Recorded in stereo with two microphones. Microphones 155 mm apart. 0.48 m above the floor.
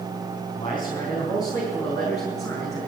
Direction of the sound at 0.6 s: 35° left (ahead or behind).